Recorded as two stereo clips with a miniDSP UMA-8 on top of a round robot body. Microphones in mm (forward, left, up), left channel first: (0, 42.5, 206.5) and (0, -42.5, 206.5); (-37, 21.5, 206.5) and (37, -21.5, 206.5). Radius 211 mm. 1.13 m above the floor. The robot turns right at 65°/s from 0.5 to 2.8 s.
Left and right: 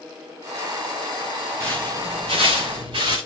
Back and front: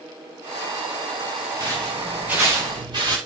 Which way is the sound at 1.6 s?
150° right.